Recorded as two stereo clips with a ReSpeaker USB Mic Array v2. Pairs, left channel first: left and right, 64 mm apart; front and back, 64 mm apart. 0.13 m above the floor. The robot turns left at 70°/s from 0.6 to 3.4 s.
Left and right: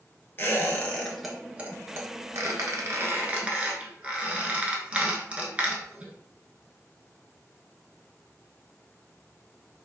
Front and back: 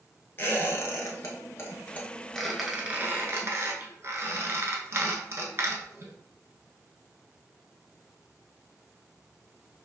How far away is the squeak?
About 0.6 m.